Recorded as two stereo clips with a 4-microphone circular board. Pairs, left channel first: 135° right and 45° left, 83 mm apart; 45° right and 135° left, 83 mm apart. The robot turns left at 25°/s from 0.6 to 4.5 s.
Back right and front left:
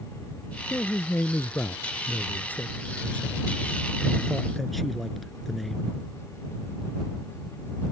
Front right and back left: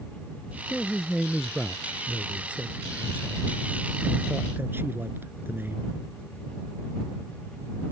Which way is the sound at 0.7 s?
125° right.